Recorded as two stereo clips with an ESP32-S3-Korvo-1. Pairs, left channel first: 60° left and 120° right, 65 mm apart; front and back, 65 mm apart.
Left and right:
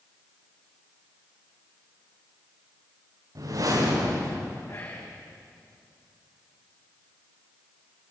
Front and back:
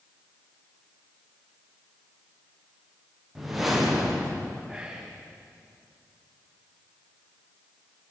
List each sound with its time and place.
3.4 s a whoosh: 95° right, 9 m
4.7 s whispering: 105° left, 8 m